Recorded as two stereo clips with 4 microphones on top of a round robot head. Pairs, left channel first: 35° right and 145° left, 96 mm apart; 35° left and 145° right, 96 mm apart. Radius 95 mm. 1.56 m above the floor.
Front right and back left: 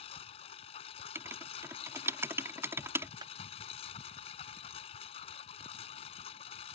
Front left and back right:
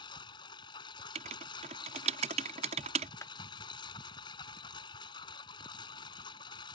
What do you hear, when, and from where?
0.0 s a lawn mower: 10° right
1.1 s writing: 150° right
3.2 s a clap: 95° left